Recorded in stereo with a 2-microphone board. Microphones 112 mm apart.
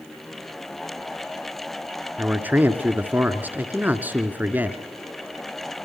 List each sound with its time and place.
2.2 s a man speaking: 15° right (ahead or behind), 1.8 m